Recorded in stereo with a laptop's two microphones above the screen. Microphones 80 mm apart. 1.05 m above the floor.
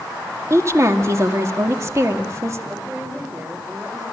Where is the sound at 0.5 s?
35° right (ahead or behind), 2 m.